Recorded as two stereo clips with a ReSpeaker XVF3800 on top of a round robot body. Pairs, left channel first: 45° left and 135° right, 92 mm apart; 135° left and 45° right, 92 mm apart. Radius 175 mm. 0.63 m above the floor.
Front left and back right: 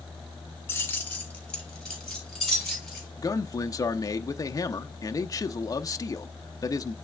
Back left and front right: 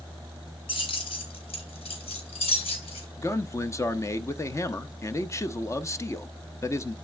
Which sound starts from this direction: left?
A man speaking, at 3.2 s.